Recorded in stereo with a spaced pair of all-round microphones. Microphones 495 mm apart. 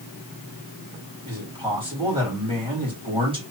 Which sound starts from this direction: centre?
A man speaking, at 1.2 s.